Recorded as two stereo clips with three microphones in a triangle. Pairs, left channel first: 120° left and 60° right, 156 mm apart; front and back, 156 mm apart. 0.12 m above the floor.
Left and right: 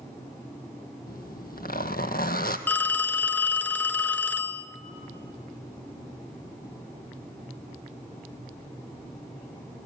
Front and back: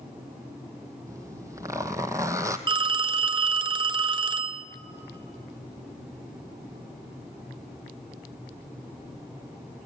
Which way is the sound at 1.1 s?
110° left.